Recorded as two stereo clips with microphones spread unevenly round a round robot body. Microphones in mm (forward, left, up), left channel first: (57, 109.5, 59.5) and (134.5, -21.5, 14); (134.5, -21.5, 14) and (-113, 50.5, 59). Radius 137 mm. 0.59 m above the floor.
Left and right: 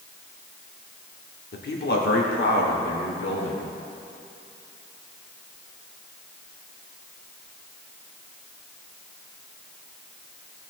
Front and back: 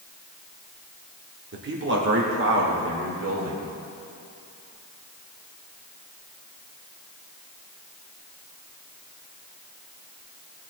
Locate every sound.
1.5 s a man speaking: 115° left, 1.8 m; by 3.7 s 125° left, 3 m